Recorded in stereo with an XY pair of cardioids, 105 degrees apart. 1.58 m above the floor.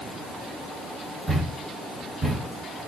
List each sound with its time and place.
1.3 s a thud: 30° right, 3.5 m